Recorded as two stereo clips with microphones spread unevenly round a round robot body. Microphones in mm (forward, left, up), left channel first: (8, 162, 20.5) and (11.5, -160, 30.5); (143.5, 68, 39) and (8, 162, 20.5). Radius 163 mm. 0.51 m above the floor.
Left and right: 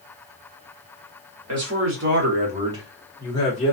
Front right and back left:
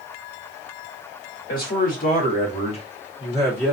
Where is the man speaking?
55° right, 1.3 m; by 3.8 s 55° left, 1.0 m.